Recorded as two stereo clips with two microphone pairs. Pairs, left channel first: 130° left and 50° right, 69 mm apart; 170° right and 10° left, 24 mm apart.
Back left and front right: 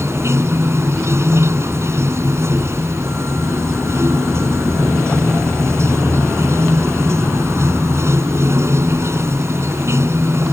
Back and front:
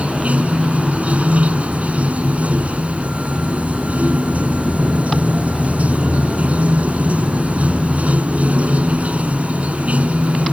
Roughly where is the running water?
Ahead.